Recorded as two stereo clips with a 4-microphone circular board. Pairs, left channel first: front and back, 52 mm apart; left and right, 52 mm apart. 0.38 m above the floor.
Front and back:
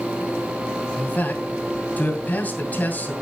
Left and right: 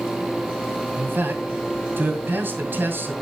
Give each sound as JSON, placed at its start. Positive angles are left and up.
{"t": 1.0, "sound": "a man speaking", "azimuth_deg": -55, "distance_m": 2.0}